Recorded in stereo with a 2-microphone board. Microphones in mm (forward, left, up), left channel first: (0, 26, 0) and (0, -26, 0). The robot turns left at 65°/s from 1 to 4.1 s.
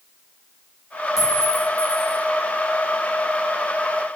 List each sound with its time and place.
1.2 s a clink: 10° right (ahead or behind), 0.8 m; by 2.2 s 30° right (ahead or behind), 0.8 m